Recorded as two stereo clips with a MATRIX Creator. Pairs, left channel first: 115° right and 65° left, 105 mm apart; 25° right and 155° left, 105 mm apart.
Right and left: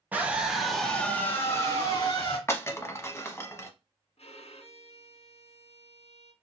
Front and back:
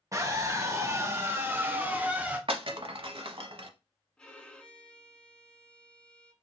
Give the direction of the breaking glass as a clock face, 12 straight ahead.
6 o'clock.